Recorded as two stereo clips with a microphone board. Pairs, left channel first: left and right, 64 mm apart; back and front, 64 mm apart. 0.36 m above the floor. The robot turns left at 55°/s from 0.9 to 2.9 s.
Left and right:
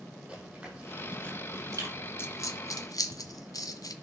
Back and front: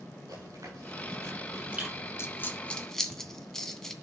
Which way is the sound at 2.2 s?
135° left.